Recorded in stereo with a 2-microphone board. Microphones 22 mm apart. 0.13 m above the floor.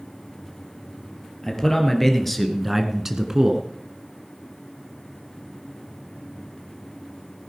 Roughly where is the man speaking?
Left.